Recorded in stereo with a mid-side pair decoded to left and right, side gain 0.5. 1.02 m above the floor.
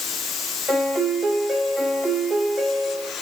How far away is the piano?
About 6 m.